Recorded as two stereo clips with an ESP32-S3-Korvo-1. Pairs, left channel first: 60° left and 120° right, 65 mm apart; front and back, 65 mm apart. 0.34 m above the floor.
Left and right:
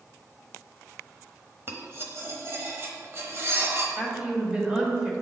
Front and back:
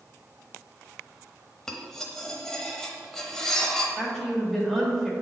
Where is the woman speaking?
90° right, 1.3 m.